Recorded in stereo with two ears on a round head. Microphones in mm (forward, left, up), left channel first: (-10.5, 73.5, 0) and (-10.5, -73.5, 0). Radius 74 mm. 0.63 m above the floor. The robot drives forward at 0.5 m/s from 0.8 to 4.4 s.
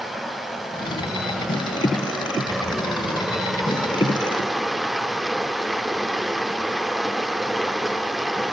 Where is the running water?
Centre (ahead or behind), 3 m.